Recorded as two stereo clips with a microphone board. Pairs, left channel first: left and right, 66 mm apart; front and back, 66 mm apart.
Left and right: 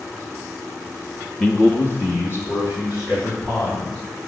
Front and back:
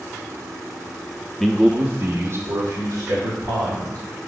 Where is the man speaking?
75° left, 0.7 m; by 4.0 s 140° left, 3.5 m.